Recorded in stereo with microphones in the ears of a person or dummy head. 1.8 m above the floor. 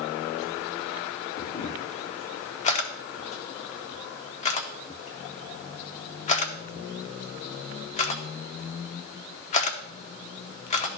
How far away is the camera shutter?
About 0.7 m.